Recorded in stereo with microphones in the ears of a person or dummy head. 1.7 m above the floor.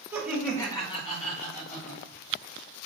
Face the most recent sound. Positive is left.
turn(degrees=65)  # may be behind; listen again after turning